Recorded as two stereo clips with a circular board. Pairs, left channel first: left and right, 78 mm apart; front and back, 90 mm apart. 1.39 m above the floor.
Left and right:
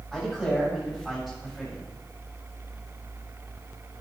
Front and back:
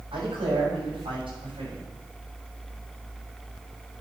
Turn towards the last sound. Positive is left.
turn(degrees=180)